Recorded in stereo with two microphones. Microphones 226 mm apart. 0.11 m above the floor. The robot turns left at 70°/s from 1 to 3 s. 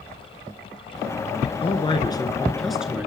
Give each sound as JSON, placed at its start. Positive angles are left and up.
{"t": 1.6, "sound": "a man speaking", "side_deg": 25, "distance_m": 1.2}